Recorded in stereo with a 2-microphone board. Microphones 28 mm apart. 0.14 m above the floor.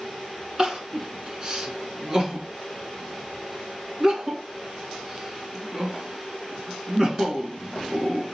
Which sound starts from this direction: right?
Crying, at 0.6 s.